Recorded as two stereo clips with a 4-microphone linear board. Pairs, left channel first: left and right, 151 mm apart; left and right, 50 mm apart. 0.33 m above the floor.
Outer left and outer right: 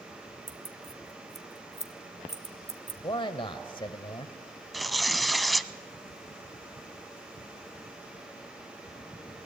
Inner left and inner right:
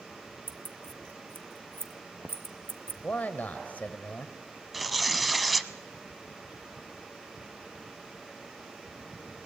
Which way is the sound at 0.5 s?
45° right (ahead or behind).